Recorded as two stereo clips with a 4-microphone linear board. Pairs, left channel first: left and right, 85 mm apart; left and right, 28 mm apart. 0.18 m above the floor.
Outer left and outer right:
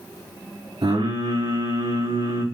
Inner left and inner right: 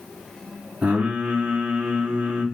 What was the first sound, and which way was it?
Singing, 75° right (ahead or behind).